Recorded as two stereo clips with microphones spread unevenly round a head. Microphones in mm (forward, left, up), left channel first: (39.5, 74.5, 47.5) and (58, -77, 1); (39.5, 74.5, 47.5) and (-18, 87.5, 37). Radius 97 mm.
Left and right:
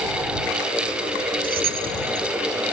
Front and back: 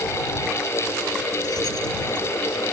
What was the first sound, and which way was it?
Keys jangling, 55° right.